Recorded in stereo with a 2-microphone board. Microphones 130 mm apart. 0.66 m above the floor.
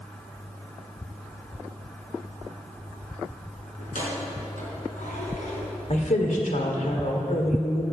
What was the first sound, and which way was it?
Keys jangling, 85° left.